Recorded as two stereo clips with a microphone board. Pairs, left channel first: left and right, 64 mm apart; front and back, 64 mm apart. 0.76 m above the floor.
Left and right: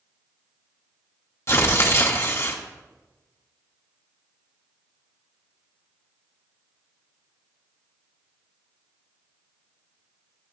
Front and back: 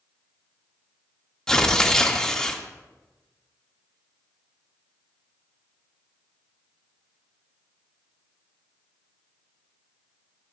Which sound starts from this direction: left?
Tearing paper, at 1.5 s.